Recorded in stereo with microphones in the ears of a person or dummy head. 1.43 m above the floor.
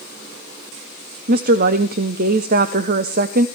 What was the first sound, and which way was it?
A woman speaking, 40° right (ahead or behind).